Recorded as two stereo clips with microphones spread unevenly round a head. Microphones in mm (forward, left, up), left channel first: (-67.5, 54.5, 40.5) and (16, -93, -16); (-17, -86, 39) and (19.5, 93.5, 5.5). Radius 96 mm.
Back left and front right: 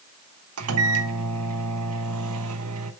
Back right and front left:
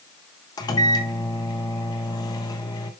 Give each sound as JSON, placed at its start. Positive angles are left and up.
{"t": 0.6, "sound": "a microwave", "azimuth_deg": -40, "distance_m": 1.0}